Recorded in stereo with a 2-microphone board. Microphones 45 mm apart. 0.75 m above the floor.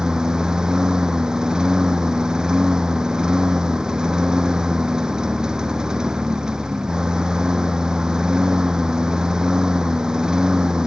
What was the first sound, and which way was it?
A lawn mower, 15° right (ahead or behind).